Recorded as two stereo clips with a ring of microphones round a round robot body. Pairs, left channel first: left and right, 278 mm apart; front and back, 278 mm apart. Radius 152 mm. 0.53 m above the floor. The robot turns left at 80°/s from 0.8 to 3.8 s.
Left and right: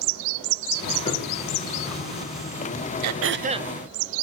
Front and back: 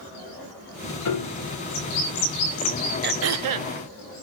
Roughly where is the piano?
Ahead.